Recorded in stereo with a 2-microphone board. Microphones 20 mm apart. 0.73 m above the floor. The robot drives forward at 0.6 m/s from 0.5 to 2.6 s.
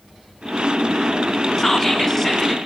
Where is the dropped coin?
I don't hear a dropped coin.